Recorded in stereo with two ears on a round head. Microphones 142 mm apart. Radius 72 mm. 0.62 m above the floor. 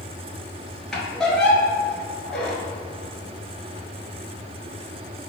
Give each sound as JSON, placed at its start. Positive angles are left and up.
{"t": 0.9, "sound": "a squeak", "side_deg": 5, "distance_m": 0.8}